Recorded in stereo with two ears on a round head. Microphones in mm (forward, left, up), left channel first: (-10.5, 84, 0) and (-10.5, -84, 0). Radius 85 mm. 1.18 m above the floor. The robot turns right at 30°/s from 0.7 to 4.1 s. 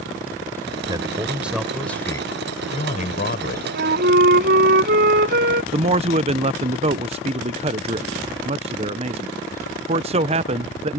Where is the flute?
55° right (ahead or behind).